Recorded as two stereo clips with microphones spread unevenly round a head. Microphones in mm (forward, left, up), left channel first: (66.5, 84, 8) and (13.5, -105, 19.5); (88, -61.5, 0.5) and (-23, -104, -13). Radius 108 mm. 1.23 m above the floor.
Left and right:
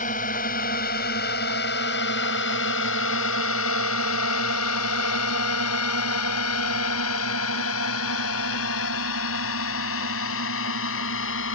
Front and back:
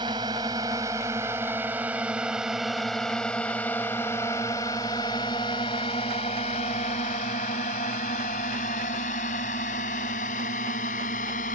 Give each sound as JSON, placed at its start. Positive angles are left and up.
{"t": 0.0, "sound": "a drone", "azimuth_deg": 130}